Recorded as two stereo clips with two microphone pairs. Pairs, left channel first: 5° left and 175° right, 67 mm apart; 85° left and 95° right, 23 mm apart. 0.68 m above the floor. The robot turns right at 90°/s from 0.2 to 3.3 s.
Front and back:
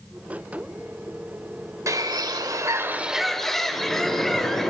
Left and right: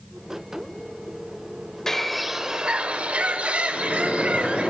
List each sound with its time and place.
1.9 s a bird: 150° left, 0.7 m; by 4.7 s 80° right, 0.7 m
3.7 s a microwave: 80° left, 5.5 m